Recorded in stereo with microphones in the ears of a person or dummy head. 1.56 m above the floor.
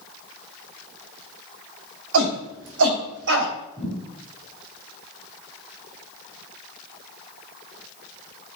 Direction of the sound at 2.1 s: 80° right.